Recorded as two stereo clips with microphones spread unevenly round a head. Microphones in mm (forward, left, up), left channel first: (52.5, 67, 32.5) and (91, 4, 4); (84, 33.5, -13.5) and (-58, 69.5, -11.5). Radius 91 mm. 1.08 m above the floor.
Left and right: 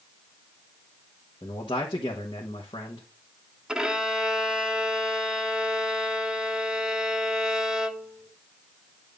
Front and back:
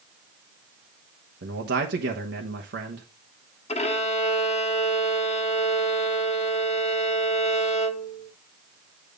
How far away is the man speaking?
About 1.0 m.